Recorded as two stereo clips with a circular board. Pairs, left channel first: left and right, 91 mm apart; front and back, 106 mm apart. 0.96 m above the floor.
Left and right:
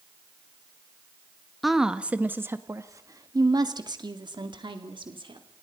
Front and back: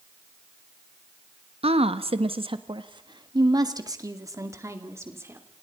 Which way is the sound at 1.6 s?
Straight behind.